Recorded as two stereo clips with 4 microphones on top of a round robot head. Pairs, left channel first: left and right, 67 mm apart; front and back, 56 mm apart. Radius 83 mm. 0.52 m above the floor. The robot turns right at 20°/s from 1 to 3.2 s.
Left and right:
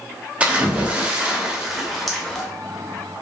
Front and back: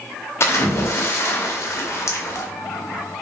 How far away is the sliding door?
No sliding door in this recording.